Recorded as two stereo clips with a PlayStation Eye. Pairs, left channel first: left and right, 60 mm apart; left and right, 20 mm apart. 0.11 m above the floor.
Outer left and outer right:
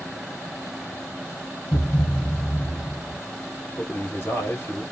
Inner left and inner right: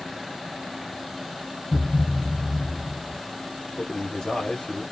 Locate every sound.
1.7 s a thud: 60° left (ahead or behind), 1.2 m
3.8 s a man speaking: 35° left (ahead or behind), 2 m